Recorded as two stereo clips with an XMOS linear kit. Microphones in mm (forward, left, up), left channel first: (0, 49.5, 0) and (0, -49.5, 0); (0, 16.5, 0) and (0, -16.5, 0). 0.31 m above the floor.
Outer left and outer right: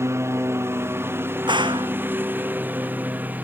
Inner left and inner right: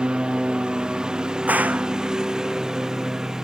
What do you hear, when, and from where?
0.0 s a lawn mower: 25° right (ahead or behind); by 3.4 s 15° right (ahead or behind)
1.5 s a gunshot: 50° right (ahead or behind)